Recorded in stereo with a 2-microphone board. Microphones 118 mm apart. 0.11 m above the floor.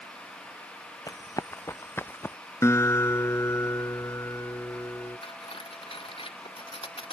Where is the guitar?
25° left (ahead or behind).